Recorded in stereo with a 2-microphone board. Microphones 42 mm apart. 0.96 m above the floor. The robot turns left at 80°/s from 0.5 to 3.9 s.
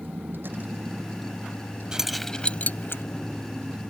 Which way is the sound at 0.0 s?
130° right.